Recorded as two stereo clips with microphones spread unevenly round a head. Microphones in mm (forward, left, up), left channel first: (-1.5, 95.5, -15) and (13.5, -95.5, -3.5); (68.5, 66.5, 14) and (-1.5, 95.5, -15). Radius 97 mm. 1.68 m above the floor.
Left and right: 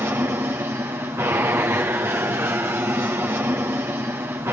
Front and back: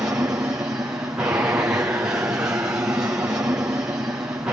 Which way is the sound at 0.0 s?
160° right.